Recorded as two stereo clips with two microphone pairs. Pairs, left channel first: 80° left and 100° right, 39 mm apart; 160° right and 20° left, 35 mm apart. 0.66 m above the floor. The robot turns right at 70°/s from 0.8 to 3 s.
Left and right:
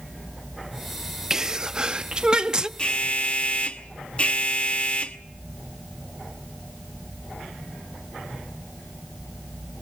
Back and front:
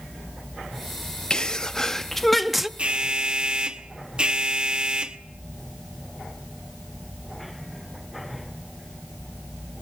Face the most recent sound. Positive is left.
turn(degrees=55)